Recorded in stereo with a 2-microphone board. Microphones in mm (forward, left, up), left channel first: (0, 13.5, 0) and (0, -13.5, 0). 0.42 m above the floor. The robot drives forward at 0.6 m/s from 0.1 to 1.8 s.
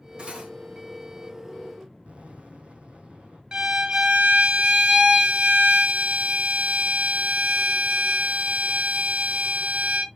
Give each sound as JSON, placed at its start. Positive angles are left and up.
{"t": 0.2, "sound": "cutlery clinking", "side_deg": -45, "distance_m": 1.2}
{"t": 2.0, "sound": "an explosion", "side_deg": -60, "distance_m": 2.5}
{"t": 3.5, "sound": "a violin", "side_deg": -45, "distance_m": 0.7}